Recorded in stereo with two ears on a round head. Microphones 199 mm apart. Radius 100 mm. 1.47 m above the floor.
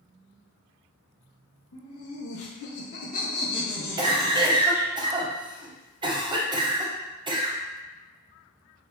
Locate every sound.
1.7 s laughter: 75° left (ahead or behind), 1.2 m; by 4.9 s 15° right (ahead or behind), 1.1 m
4.0 s a cough: 20° right (ahead or behind), 0.6 m